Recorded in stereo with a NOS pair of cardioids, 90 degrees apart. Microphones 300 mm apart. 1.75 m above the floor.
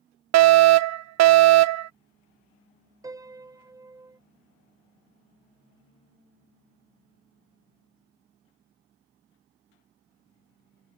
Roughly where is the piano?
Ahead.